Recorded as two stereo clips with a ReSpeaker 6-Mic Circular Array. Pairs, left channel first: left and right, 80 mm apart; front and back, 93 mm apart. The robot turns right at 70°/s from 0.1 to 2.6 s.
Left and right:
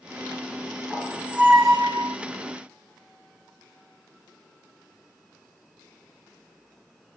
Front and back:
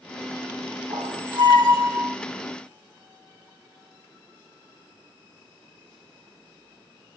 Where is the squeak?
170° left, 2 m; by 2.2 s 100° right, 2 m.